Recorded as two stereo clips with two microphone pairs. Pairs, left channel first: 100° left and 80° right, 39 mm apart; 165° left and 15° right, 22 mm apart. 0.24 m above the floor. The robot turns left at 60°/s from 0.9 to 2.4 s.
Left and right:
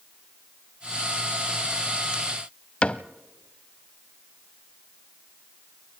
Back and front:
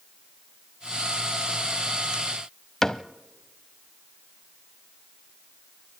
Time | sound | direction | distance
2.8 | a cupboard door | 110° left | 0.7 m